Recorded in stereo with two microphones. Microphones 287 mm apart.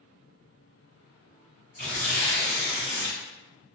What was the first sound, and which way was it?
Tearing paper, 35° right (ahead or behind).